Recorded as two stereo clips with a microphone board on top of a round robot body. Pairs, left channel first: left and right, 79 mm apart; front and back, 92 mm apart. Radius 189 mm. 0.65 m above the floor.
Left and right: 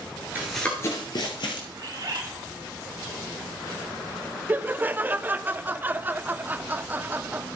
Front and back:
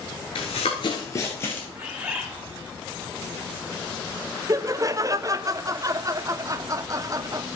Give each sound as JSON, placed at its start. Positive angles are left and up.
{"t": 0.3, "sound": "running footsteps", "azimuth_deg": -25, "distance_m": 0.8}
{"t": 1.8, "sound": "a bird", "azimuth_deg": -110, "distance_m": 1.9}
{"t": 4.5, "sound": "laughter", "azimuth_deg": -145, "distance_m": 0.6}